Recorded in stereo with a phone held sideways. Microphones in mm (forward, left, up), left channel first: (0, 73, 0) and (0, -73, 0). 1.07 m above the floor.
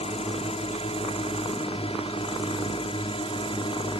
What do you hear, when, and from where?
0.0 s a drone: 45° left (ahead or behind); by 4.0 s 40° left (ahead or behind)